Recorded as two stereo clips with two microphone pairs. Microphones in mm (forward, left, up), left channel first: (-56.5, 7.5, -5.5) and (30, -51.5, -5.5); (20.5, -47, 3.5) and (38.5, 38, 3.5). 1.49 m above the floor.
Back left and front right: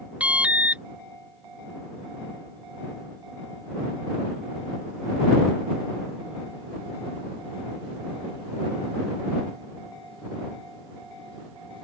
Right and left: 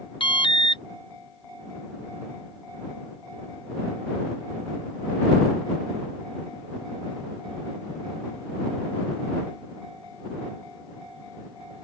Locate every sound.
0.2 s an alarm: 115° right